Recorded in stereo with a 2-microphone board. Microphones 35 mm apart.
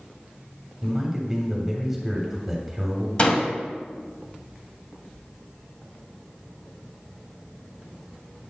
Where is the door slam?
30° left (ahead or behind), 0.8 m.